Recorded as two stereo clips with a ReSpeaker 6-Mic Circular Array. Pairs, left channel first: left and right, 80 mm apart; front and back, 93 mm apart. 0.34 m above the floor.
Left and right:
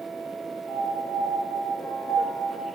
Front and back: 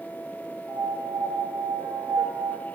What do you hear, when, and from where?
0.7 s a piano: 130° left, 2.5 m